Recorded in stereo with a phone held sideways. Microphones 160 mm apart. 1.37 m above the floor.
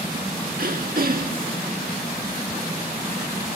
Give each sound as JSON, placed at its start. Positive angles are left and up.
{"t": 0.6, "sound": "throat clearing", "side_deg": -65}